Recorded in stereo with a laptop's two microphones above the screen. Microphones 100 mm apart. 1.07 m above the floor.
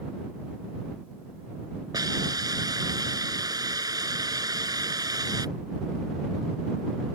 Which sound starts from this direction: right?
A hiss, at 1.9 s.